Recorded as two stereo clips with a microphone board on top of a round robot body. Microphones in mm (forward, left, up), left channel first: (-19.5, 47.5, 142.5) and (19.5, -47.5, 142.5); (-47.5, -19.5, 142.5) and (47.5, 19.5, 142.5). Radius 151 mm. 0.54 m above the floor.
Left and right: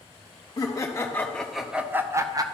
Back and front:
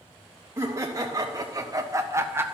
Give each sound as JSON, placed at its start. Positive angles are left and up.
{"t": 0.6, "sound": "laughter", "azimuth_deg": 75, "distance_m": 1.2}